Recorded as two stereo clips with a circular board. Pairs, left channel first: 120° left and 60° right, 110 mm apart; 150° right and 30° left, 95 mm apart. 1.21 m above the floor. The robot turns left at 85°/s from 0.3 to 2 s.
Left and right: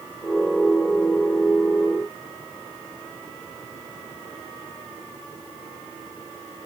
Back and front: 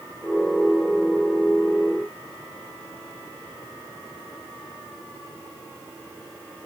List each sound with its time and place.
Only background noise.